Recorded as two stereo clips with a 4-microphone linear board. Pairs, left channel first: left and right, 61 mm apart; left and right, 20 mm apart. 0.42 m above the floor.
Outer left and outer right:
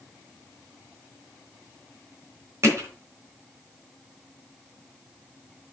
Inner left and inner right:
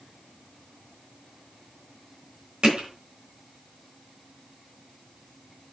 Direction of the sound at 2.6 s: 45° right (ahead or behind).